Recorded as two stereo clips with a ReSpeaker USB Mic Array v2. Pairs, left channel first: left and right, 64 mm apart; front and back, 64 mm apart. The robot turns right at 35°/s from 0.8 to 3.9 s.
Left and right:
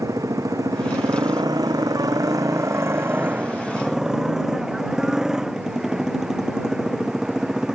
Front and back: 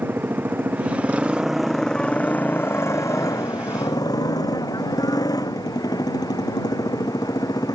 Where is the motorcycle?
120° right; by 7.8 s 10° right.